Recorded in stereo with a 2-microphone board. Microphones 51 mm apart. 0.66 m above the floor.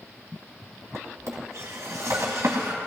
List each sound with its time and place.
0.9 s a drawer: 70° right (ahead or behind), 2 m